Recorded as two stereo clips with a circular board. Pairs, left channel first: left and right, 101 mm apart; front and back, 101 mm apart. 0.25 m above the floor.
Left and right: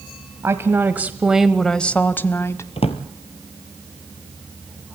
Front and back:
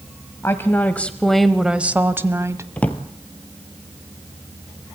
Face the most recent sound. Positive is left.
turn(degrees=75)